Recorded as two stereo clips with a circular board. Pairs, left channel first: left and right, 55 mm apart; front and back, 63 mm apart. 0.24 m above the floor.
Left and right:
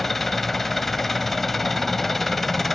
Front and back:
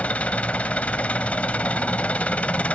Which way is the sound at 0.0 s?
10° left.